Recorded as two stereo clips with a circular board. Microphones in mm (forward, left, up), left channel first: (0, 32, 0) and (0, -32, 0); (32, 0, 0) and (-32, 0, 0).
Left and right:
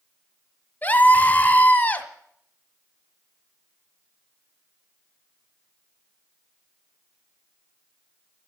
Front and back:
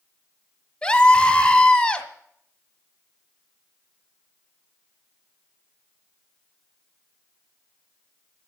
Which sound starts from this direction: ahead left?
A scream, at 0.8 s.